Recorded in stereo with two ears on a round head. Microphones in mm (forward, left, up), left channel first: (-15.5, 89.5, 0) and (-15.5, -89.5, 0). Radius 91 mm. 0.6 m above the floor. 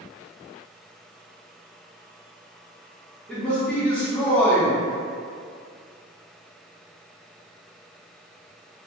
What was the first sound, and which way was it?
A man speaking, 5° left (ahead or behind).